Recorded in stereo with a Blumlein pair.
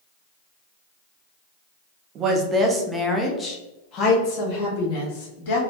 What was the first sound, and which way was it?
A woman speaking, 35° right.